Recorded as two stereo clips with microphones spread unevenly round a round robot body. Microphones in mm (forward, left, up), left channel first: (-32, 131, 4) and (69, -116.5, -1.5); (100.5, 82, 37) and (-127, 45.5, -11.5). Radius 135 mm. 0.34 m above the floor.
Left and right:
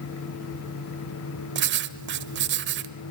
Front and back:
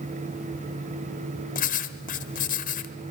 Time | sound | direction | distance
1.6 | writing | 50° right | 1.1 m